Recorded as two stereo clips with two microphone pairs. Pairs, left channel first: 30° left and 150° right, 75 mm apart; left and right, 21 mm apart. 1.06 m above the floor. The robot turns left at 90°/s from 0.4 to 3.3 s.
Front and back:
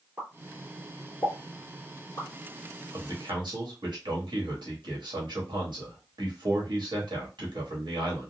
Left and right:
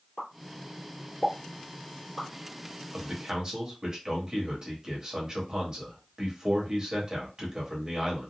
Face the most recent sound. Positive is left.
turn(degrees=-150)